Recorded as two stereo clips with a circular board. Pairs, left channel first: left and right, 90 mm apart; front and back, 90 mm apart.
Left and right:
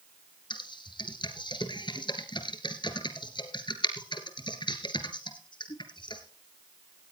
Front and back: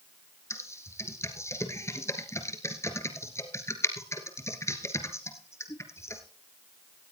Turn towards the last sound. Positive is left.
turn(degrees=60)